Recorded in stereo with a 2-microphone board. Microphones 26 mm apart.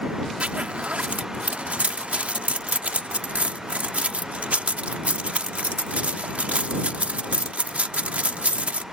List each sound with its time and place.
0.4 s a zipper: 60° right (ahead or behind)